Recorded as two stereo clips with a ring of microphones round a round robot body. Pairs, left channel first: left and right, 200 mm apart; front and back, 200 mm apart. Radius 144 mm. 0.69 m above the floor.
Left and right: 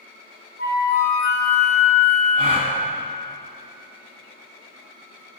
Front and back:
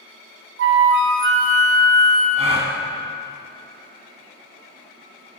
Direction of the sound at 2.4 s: 135° right.